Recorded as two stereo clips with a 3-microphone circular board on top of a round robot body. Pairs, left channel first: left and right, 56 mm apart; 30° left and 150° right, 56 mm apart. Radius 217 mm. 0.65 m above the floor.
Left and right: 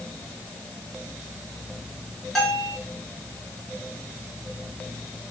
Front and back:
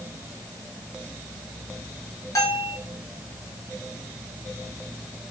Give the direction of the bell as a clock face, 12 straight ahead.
12 o'clock.